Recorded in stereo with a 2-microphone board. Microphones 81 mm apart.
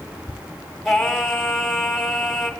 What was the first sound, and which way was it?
Singing, centre (ahead or behind).